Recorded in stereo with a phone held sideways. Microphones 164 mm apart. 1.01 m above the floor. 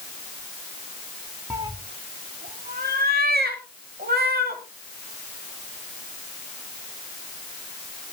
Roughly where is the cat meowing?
Centre.